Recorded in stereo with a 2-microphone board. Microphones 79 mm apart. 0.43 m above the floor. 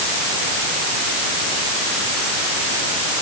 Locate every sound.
Only background noise.